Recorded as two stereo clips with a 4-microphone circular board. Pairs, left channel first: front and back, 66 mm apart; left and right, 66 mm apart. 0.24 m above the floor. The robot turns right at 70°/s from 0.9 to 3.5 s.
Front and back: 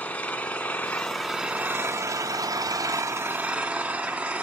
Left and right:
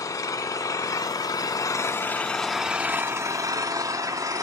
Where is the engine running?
65° left, 0.8 m; by 4.4 s 110° right, 0.8 m.